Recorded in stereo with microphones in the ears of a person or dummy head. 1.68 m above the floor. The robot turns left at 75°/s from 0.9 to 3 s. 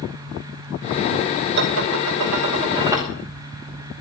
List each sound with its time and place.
1.6 s dishes clattering: 60° right, 2.5 m; by 3.1 s 170° right, 2.5 m